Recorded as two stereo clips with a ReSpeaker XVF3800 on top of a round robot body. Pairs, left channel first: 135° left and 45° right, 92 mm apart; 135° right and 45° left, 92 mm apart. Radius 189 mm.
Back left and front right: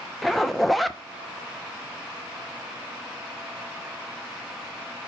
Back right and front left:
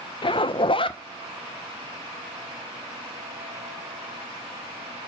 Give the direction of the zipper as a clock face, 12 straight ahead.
5 o'clock.